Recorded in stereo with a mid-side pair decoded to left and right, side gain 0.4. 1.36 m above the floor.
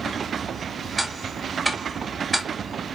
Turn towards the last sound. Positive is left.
turn(degrees=-10)